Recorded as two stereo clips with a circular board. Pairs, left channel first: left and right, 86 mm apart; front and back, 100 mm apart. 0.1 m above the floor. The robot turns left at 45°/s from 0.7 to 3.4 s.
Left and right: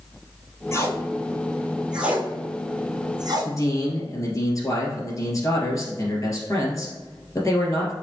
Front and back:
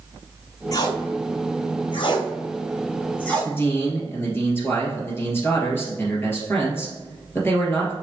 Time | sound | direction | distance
0.7 | tape being pulled | 45° left | 1.2 m
3.5 | a man speaking | 60° left | 2 m